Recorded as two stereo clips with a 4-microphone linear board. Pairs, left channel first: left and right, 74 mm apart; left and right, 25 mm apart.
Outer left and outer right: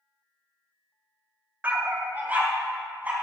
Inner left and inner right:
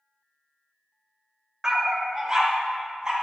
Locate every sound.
1.6 s a dog barking: 25° right (ahead or behind), 0.8 m